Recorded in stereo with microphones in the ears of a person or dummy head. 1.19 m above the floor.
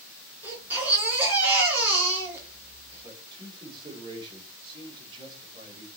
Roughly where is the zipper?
No zipper in this recording.